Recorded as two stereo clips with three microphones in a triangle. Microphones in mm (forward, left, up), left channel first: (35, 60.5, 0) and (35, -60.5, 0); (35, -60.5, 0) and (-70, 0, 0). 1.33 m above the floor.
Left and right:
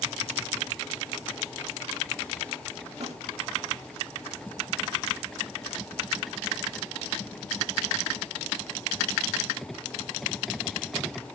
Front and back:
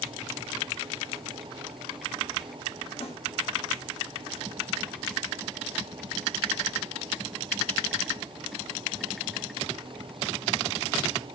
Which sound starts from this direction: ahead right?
A snare drum, at 3.0 s.